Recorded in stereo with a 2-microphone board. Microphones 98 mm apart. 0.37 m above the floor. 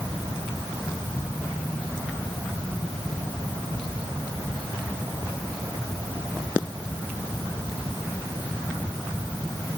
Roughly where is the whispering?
I don't hear whispering.